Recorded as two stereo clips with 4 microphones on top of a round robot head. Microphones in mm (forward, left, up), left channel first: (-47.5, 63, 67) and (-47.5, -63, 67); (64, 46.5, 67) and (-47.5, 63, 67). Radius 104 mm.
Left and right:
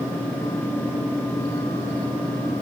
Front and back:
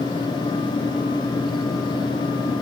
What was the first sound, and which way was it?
Only background noise.